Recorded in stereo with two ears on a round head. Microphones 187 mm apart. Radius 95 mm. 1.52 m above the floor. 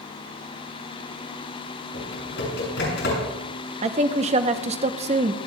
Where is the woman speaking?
30° right (ahead or behind), 0.8 m.